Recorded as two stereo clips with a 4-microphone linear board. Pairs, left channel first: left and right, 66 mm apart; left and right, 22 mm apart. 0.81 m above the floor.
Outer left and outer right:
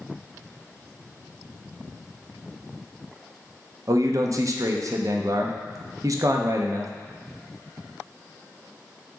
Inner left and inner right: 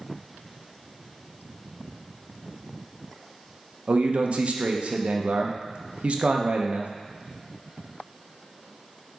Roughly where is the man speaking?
Right.